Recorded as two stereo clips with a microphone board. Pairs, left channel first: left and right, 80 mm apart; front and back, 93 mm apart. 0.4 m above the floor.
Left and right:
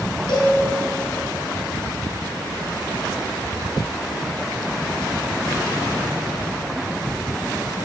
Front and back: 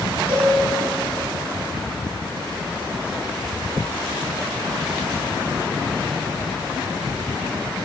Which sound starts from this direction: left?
A cowbell, at 0.3 s.